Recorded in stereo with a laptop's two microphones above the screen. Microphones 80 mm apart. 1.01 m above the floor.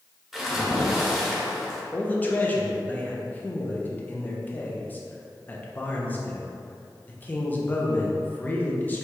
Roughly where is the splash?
Centre.